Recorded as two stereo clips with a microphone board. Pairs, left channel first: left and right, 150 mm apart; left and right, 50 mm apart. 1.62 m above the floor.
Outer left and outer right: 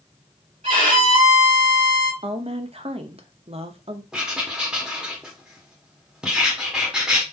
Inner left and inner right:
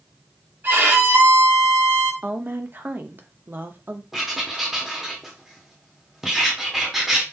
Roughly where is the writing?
Centre.